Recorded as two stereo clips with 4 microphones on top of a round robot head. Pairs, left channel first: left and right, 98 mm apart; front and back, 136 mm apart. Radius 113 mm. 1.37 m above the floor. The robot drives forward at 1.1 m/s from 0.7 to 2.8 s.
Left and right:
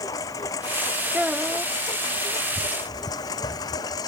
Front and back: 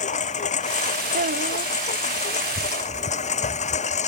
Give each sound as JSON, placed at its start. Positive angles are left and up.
{"t": 0.0, "sound": "a lawn mower", "azimuth_deg": 25}
{"t": 1.1, "sound": "a child speaking", "azimuth_deg": -170}